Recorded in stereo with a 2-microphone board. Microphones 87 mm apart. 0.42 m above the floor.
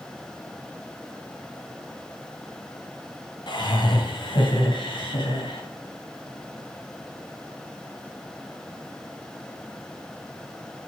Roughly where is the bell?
I don't hear a bell.